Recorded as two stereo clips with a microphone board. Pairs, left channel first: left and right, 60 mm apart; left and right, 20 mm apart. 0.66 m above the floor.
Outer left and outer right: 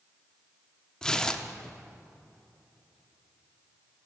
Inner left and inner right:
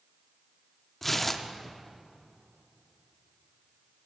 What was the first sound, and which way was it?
Tearing paper, 10° left (ahead or behind).